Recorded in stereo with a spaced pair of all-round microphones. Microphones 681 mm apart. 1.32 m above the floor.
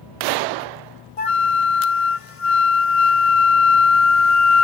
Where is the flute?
55° left (ahead or behind).